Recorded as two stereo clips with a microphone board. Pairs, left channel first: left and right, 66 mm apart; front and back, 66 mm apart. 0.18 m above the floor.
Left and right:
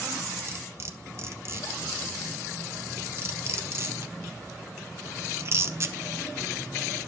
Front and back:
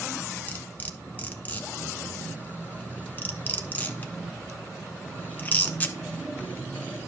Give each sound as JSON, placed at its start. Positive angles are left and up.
{"t": 0.5, "sound": "cutlery clinking", "azimuth_deg": -60, "distance_m": 1.1}